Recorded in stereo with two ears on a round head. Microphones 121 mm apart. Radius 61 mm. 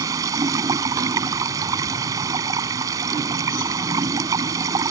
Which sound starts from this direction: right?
Running water, at 0.0 s.